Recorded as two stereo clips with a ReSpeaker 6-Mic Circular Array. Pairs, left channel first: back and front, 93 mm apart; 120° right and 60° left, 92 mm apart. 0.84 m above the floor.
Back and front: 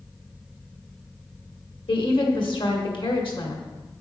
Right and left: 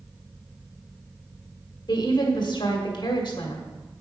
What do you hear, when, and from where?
1.9 s a woman speaking: 155° right, 1.8 m